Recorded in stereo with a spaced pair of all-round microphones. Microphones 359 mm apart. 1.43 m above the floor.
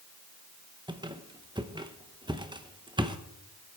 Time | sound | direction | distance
0.9 | a squeak | 15° right (ahead or behind) | 0.8 m